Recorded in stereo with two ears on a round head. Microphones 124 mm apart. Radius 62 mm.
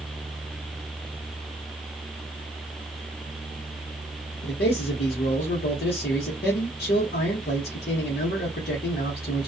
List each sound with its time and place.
4.4 s a man speaking: 80° left, 0.9 m